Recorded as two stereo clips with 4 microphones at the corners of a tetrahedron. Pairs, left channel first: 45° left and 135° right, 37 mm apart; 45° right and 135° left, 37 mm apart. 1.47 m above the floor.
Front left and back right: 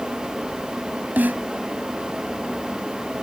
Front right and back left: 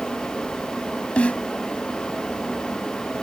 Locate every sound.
1.2 s a snare drum: 100° right